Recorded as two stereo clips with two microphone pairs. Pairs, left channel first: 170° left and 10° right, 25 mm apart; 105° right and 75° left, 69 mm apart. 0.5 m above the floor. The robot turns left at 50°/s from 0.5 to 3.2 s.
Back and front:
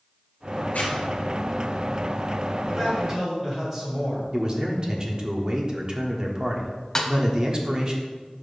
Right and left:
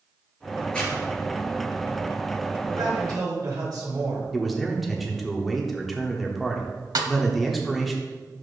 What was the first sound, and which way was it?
A zipper, straight behind.